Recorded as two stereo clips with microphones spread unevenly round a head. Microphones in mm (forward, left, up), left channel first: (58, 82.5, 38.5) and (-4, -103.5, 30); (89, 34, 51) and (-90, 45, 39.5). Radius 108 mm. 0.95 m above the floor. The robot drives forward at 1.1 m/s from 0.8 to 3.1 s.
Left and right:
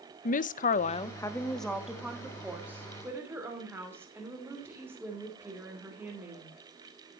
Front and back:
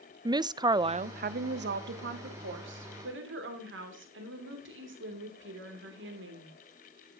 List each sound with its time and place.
0.2 s a woman speaking: 115° left, 0.5 m; by 6.5 s 170° left, 3 m